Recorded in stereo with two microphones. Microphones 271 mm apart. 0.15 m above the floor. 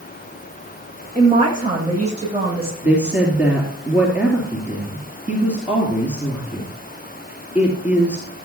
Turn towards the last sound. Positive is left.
turn(degrees=-5)  # may be behind; listen again after turning